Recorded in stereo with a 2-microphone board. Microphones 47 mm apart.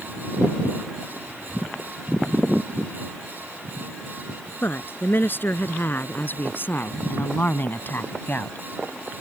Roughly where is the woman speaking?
Left.